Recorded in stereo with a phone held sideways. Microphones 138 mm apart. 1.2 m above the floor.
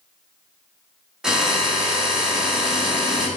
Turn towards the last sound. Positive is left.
turn(degrees=-5)  # may be behind; listen again after turning